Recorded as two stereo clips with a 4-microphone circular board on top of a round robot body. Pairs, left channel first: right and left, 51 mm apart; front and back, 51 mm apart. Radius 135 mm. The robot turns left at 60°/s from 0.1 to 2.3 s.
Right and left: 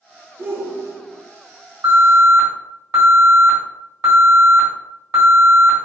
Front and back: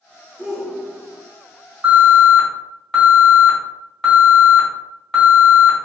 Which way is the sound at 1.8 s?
105° left.